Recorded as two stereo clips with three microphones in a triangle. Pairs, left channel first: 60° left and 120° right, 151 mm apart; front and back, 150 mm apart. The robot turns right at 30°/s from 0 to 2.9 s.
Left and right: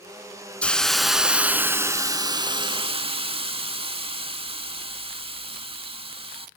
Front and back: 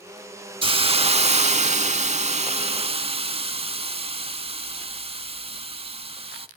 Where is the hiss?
140° left, 0.5 m; by 6.5 s 155° right, 0.5 m.